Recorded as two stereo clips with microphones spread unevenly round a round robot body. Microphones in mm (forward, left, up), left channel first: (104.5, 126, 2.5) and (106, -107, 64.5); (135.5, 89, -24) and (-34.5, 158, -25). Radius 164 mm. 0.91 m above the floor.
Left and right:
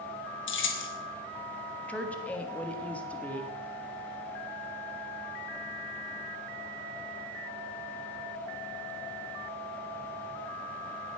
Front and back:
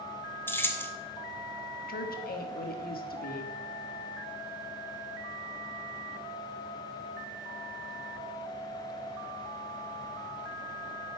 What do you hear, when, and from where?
0.5 s keys jangling: 55° left, 1.3 m
1.9 s a woman speaking: 10° left, 1.5 m